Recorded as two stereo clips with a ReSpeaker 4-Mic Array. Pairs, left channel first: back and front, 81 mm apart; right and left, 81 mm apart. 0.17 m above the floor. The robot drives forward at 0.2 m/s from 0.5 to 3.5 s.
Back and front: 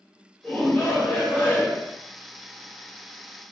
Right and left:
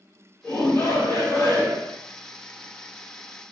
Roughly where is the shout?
Behind right.